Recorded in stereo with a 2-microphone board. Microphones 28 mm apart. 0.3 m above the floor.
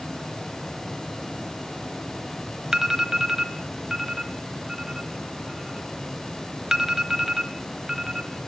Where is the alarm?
20° right (ahead or behind), 1.2 m.